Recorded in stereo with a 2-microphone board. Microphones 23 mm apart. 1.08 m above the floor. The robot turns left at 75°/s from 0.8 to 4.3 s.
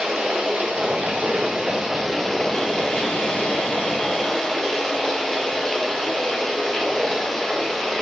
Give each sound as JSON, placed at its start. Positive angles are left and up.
{"t": 0.0, "sound": "running water", "azimuth_deg": -75, "distance_m": 0.8}